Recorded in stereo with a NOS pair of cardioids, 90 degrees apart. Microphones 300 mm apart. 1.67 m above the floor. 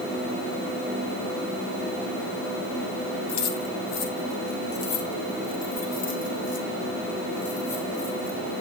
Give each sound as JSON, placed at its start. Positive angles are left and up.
{"t": 3.3, "sound": "keys jangling", "azimuth_deg": 70, "distance_m": 2.0}